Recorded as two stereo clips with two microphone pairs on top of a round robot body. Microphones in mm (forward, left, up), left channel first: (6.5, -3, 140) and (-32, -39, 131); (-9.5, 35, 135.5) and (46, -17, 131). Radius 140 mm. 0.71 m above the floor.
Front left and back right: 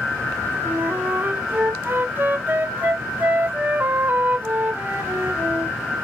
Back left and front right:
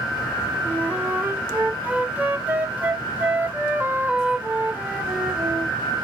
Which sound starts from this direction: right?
A flute, at 0.7 s.